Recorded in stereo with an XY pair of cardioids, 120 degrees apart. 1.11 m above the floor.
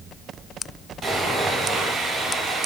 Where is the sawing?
40° right, 2 m.